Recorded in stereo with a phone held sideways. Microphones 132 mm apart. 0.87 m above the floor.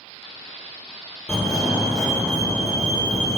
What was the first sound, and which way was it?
A fire alarm, 5° left (ahead or behind).